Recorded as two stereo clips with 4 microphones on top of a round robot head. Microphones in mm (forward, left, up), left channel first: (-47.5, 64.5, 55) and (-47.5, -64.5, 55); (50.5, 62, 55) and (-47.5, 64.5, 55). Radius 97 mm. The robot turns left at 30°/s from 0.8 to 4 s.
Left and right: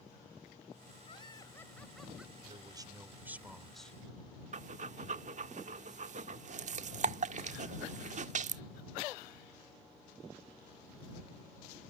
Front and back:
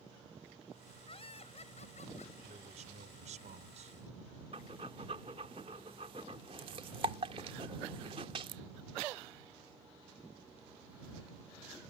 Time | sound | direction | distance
1.1 | laughter | 30° left | ?
2.4 | a man speaking | 140° right | ?
4.5 | breathing | 125° right | ?